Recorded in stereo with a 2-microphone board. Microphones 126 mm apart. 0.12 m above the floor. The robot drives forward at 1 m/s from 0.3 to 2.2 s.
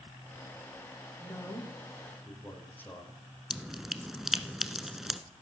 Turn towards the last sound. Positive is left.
turn(degrees=0)  # may be behind; listen again after turning